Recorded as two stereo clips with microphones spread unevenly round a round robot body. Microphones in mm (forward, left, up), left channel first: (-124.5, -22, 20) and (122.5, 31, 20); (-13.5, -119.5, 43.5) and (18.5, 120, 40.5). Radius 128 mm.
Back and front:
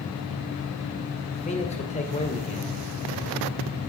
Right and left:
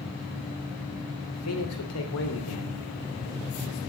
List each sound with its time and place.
1.3 s a man speaking: 105° right, 2.5 m